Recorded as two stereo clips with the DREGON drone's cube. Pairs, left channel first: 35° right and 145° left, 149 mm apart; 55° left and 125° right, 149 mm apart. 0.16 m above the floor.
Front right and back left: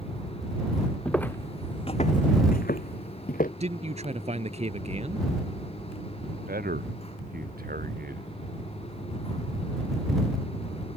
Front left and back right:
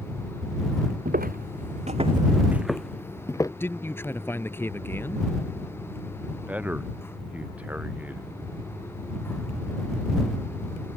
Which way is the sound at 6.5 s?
155° left.